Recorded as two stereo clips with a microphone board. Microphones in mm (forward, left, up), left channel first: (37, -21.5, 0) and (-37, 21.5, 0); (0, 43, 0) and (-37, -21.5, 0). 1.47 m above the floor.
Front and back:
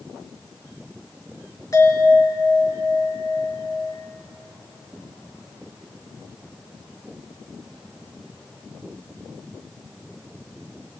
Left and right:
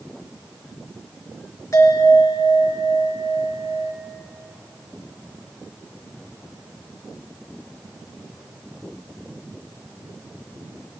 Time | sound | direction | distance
1.7 | a bell | 20° left | 4 m